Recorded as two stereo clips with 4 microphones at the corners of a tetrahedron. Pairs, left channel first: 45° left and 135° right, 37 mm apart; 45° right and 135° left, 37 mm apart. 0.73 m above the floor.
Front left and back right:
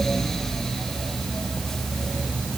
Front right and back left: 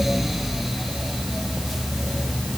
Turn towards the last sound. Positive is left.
No sound to turn to.